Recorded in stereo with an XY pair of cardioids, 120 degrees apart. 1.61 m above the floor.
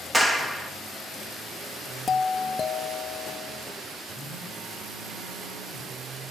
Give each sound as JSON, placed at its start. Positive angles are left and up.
{"t": 0.1, "sound": "a clap", "azimuth_deg": -5, "distance_m": 2.0}
{"t": 2.1, "sound": "a doorbell", "azimuth_deg": 25, "distance_m": 1.1}
{"t": 4.1, "sound": "a phone buzzing", "azimuth_deg": -70, "distance_m": 4.0}